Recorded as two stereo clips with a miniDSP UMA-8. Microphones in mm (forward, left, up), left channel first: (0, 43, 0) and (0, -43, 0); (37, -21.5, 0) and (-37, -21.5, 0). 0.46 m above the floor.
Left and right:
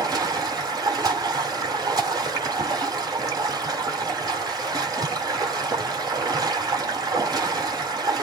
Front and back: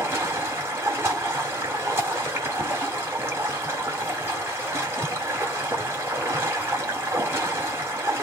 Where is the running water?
130° right, 3 m.